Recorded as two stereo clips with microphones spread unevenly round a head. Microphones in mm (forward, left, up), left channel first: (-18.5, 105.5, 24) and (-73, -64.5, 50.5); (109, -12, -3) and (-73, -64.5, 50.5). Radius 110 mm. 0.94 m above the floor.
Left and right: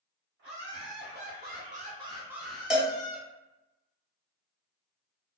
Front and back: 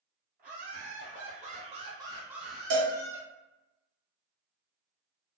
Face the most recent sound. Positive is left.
turn(degrees=165)